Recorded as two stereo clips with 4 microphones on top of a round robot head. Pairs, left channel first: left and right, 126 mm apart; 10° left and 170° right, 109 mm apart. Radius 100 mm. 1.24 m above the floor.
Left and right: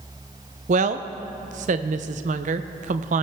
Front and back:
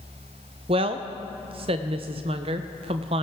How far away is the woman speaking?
About 0.5 m.